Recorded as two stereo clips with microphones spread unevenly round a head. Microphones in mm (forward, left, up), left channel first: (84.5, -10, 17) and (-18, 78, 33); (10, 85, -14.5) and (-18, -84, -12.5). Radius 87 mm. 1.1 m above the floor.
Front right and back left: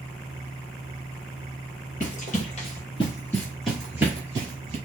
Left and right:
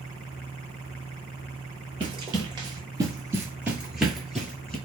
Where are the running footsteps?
45° right, 1.5 m; by 4.8 s 160° left, 1.3 m.